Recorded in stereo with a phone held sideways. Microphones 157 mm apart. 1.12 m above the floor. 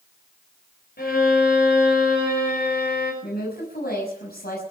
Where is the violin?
80° left, 6.5 m.